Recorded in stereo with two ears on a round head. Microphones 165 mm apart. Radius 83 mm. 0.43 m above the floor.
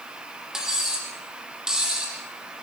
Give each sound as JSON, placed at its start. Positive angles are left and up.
{"t": 0.5, "sound": "cutlery clinking", "side_deg": -5, "distance_m": 7.5}